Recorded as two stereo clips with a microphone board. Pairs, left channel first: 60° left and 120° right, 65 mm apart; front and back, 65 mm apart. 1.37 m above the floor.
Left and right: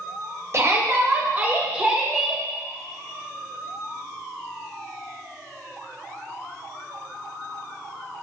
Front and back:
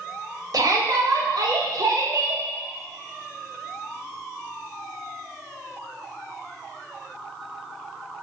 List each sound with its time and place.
0.5 s a shout: 165° right, 2.5 m; by 2.4 s 150° left, 2 m